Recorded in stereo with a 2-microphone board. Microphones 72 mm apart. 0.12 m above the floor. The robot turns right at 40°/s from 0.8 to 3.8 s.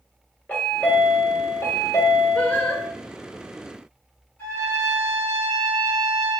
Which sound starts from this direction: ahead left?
A chime, at 0.5 s.